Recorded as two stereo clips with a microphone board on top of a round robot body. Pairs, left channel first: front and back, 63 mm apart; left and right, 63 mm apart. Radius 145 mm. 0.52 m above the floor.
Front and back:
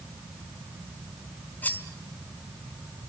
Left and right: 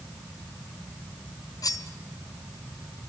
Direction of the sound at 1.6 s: 65° left.